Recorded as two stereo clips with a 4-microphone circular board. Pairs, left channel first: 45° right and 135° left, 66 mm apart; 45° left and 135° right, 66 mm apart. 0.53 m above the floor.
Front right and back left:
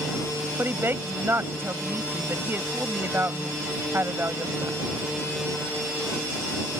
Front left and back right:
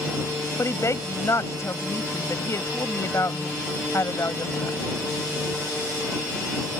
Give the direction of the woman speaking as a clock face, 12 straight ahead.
9 o'clock.